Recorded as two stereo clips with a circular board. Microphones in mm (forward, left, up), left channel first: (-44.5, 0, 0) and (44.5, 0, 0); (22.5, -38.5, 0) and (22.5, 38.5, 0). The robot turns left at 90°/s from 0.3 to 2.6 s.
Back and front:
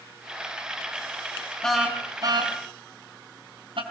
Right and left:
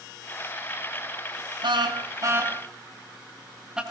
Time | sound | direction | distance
1.6 | a car horn | 100° left | 4 m